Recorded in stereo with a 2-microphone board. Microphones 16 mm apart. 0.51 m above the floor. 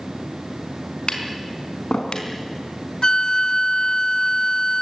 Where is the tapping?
65° left (ahead or behind), 4.5 m.